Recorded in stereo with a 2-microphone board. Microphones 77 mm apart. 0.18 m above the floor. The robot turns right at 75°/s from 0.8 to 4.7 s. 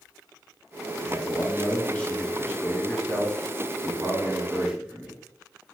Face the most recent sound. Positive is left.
turn(degrees=-10)  # may be behind; listen again after turning